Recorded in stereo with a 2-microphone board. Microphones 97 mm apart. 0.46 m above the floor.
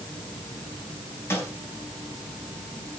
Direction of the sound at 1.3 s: 25° left (ahead or behind).